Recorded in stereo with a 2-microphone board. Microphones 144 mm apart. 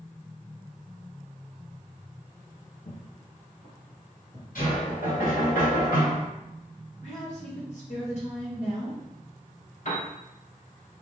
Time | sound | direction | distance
2.9 | footsteps | 55° left (ahead or behind) | 2.0 m
4.5 | knocking | 75° left (ahead or behind) | 2.0 m
7.0 | a woman speaking | 55° left (ahead or behind) | 1.4 m
9.8 | a piano | 60° left (ahead or behind) | 1.5 m